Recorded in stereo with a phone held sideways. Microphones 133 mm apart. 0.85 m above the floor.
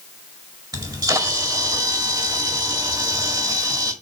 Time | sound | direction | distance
0.7 | a camera shutter | 30° right (ahead or behind) | 2 m